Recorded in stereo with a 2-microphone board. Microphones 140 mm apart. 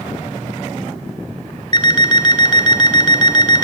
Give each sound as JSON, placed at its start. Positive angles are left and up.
{"t": 1.7, "sound": "an alarm clock", "side_deg": 35, "distance_m": 1.3}